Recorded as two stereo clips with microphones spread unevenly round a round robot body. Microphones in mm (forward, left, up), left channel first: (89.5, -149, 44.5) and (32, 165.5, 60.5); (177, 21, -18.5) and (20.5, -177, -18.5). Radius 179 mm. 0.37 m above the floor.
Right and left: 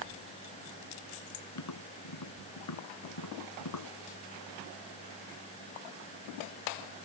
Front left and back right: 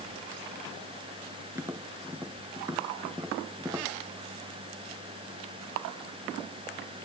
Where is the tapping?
50° right.